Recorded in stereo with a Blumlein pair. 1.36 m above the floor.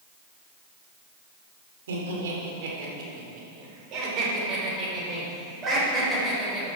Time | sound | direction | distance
1.9 | laughter | 60° right | 4 m